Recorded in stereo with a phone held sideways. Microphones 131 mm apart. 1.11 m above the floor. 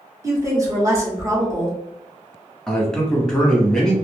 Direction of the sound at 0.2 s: 25° right (ahead or behind).